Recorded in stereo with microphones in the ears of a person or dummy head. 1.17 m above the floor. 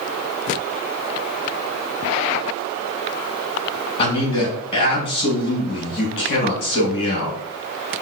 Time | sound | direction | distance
4.0 | a man speaking | 25° left (ahead or behind) | 2 m